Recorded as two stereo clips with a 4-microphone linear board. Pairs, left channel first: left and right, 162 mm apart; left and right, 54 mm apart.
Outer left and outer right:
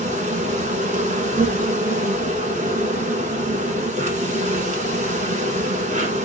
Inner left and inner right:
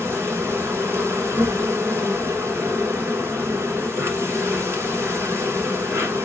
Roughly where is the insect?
Right.